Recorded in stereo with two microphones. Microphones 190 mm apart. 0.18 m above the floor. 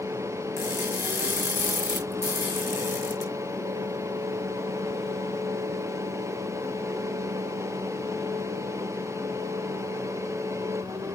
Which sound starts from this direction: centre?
Crushing, at 0.6 s.